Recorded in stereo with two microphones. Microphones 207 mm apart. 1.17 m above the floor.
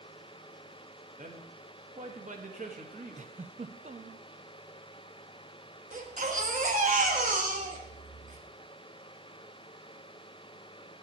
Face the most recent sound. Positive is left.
turn(degrees=-40)  # may be behind; listen again after turning